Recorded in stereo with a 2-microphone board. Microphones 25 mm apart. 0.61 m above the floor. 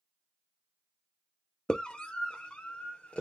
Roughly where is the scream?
Left.